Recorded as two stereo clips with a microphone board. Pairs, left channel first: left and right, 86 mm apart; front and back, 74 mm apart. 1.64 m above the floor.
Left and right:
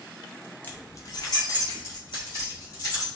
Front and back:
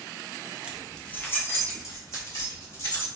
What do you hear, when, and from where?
0.6 s keys jangling: 130° left, 0.5 m; by 3.1 s 45° left, 2.5 m